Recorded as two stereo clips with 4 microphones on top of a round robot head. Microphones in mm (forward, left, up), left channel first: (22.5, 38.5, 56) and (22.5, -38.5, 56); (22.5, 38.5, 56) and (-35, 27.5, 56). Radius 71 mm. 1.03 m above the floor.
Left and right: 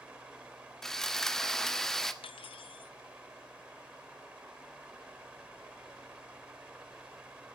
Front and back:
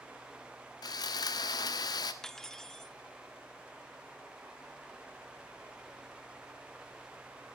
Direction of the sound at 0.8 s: 5° left.